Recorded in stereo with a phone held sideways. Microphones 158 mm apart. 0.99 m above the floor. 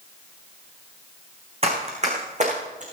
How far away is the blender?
I don't hear a blender.